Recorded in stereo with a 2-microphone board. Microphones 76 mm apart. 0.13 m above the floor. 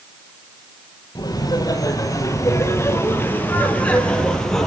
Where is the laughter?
60° left (ahead or behind), 4.5 m; by 4.7 s 5° left (ahead or behind), 4 m.